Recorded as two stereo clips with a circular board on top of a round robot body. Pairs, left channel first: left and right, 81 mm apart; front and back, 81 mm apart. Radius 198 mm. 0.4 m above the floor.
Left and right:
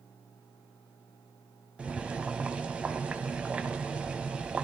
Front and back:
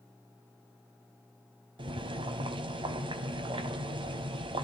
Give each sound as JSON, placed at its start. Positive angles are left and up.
{"t": 1.8, "sound": "boiling", "azimuth_deg": -165, "distance_m": 0.8}